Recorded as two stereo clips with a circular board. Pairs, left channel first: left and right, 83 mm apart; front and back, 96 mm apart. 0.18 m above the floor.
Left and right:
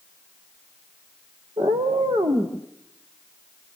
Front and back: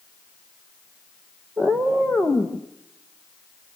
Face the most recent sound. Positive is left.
turn(degrees=-80)